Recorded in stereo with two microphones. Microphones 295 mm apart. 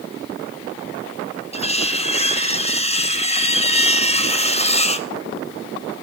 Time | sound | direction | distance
1.5 | cutlery clinking | 20° left (ahead or behind) | 0.9 m